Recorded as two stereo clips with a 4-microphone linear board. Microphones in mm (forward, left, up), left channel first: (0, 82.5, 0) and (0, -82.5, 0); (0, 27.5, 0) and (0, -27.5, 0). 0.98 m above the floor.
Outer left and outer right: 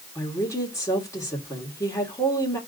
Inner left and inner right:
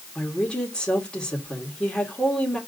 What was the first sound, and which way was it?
A woman speaking, 15° left (ahead or behind).